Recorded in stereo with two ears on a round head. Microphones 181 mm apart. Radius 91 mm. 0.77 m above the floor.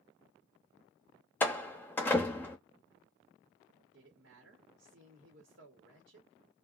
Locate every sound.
1.4 s a door slam: 10° left (ahead or behind), 0.7 m
3.9 s a woman speaking: 65° right (ahead or behind), 1.4 m